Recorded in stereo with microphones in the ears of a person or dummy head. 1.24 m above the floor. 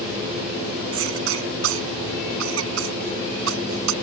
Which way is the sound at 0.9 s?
80° right.